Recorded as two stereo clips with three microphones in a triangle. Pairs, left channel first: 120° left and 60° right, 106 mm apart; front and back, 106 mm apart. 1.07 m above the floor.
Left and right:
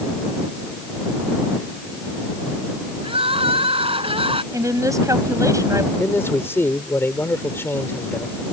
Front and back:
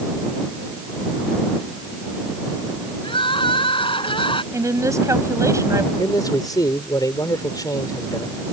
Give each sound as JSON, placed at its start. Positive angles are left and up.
{"t": 3.0, "sound": "crying", "azimuth_deg": -35}
{"t": 4.5, "sound": "a woman speaking", "azimuth_deg": -120}
{"t": 6.0, "sound": "a man speaking", "azimuth_deg": 55}